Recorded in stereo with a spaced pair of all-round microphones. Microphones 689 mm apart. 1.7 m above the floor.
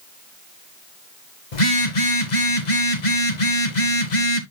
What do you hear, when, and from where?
1.5 s a phone buzzing: 85° left, 1.3 m